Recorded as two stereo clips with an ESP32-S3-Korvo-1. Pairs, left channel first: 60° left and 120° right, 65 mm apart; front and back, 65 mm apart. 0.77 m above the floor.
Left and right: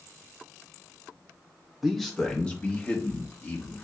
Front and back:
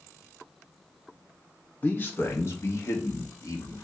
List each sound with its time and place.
1.8 s a man speaking: 35° right, 0.9 m; by 3.9 s 15° left, 1.5 m